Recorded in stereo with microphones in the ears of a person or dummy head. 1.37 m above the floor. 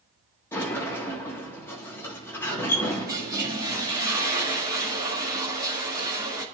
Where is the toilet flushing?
20° right (ahead or behind), 2.5 m.